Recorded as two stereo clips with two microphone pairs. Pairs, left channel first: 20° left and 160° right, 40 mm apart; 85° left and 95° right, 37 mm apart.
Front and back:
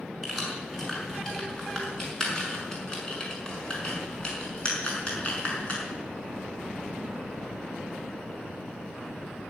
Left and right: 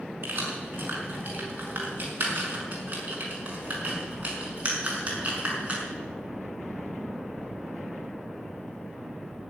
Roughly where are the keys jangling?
Right.